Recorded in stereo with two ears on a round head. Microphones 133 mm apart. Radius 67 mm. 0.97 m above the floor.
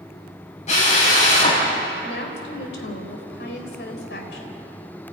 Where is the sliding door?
No sliding door in this recording.